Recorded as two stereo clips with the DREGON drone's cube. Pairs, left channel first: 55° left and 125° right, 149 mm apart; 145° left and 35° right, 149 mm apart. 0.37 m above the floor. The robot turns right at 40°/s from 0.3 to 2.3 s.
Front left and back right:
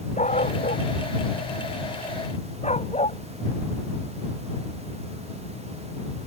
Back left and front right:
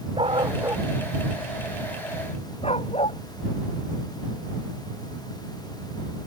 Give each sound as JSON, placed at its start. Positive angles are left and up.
{"t": 0.2, "sound": "a dog barking", "azimuth_deg": 20}